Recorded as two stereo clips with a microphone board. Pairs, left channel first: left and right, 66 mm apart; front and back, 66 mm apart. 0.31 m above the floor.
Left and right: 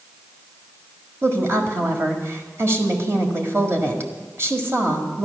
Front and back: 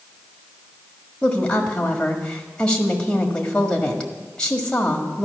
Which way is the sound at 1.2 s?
65° right.